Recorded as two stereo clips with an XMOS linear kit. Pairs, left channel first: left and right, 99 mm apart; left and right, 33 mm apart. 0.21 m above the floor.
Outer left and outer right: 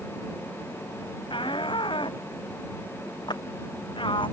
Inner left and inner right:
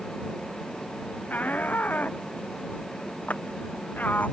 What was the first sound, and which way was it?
A shout, 55° left (ahead or behind).